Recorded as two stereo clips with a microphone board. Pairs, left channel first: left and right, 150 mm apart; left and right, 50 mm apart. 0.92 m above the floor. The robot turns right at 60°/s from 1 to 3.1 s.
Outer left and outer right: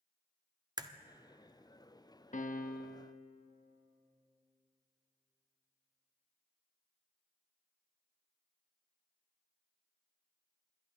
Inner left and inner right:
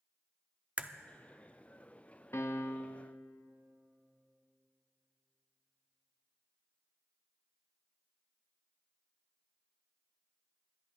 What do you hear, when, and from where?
0.8 s a crack: 30° right (ahead or behind), 0.5 m
2.3 s a piano: 60° left, 0.5 m; by 3.1 s 105° left, 0.5 m